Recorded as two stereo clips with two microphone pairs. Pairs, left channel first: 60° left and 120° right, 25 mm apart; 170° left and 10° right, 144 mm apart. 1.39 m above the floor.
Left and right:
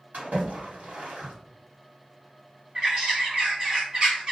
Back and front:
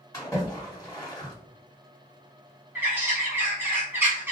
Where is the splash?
120° right, 1.3 m.